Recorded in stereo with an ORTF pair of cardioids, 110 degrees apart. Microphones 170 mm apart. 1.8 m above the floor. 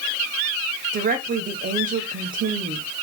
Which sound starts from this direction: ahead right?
A woman speaking, at 0.9 s.